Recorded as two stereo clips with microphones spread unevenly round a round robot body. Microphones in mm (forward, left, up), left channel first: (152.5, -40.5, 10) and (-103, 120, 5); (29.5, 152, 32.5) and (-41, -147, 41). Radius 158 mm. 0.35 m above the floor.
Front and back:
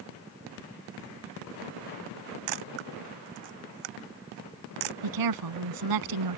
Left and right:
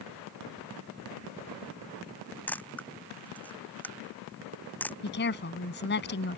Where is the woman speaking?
135° left.